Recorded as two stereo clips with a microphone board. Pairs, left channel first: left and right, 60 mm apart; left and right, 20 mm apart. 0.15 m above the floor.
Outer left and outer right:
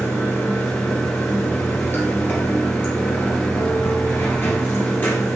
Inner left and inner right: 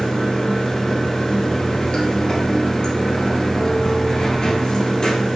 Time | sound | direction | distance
0.0 | running water | 35° left (ahead or behind) | 2.0 m